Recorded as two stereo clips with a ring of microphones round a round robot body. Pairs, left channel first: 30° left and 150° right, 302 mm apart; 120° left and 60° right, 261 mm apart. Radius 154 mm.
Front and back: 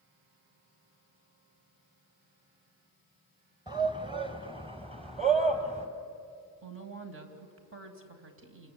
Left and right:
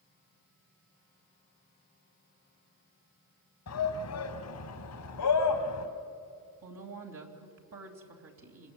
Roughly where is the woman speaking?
Right.